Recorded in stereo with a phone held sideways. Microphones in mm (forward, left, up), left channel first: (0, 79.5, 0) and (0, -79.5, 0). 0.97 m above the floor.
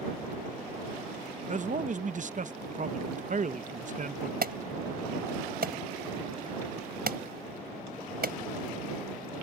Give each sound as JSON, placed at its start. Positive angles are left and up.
{"t": 1.5, "sound": "a man speaking", "side_deg": -55}
{"t": 4.4, "sound": "an alarm", "side_deg": -75}